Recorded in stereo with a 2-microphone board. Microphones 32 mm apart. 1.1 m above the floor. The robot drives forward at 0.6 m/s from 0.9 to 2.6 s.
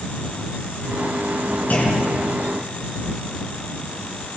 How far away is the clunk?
About 8 m.